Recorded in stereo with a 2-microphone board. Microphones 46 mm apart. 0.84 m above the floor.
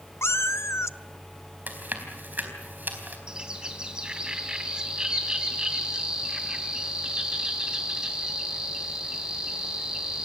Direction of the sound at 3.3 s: 20° right (ahead or behind).